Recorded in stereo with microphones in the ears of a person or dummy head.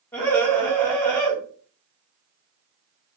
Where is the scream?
10° left (ahead or behind), 1.2 m.